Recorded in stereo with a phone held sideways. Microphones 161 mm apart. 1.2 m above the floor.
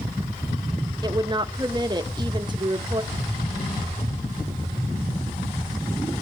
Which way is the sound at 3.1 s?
45° left (ahead or behind).